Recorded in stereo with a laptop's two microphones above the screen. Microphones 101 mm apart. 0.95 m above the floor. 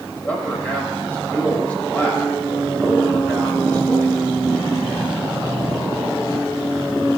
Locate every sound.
0.1 s a man speaking: 15° left (ahead or behind), 6 m